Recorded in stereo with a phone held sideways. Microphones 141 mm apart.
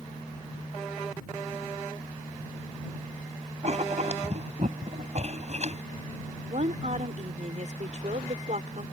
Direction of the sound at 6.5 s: 60° right (ahead or behind).